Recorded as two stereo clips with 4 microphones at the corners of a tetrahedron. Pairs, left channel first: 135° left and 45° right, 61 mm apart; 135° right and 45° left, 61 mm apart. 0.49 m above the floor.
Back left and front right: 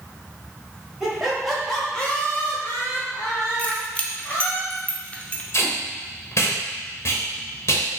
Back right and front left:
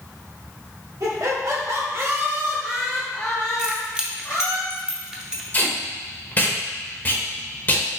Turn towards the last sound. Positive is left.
turn(degrees=165)